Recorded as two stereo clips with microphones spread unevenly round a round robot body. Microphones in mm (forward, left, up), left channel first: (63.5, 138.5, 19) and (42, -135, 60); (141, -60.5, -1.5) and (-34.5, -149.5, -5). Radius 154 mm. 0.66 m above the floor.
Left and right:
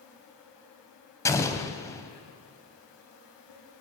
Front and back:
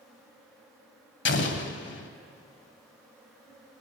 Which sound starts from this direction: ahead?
An explosion, at 1.2 s.